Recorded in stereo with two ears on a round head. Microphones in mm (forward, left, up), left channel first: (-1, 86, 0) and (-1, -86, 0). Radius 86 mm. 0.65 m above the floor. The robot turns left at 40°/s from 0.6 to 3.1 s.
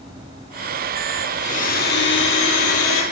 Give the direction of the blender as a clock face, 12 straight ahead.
7 o'clock.